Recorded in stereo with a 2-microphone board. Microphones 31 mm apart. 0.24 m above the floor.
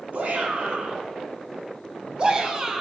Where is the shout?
60° right (ahead or behind), 3 m; by 2.8 s 20° right (ahead or behind), 1.8 m.